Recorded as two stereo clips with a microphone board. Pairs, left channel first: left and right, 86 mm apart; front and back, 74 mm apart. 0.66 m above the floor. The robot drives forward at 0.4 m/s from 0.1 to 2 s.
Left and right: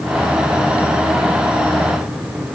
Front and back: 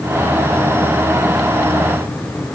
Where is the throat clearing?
No throat clearing in this recording.